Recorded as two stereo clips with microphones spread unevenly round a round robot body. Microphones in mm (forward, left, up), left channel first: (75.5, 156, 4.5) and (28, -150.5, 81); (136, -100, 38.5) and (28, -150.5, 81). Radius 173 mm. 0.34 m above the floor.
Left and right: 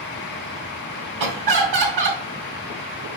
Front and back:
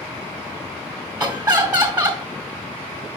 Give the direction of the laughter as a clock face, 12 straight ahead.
3 o'clock.